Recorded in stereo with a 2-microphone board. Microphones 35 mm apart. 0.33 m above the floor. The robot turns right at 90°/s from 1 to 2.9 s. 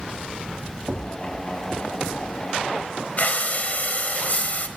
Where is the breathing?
50° left (ahead or behind), 0.9 m.